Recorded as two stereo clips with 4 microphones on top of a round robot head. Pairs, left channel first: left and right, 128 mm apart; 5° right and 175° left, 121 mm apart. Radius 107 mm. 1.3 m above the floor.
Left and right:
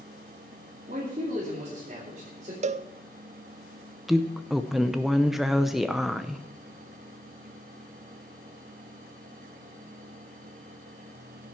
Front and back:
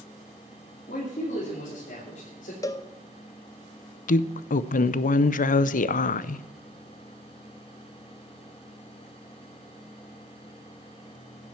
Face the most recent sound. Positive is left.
turn(degrees=0)